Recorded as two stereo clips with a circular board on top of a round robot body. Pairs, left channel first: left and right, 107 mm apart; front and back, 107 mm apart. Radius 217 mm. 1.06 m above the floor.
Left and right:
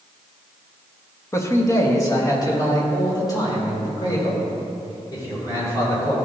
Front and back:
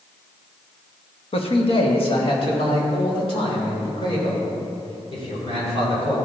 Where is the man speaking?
25° left, 1.2 m; by 6.2 s 40° left, 6 m.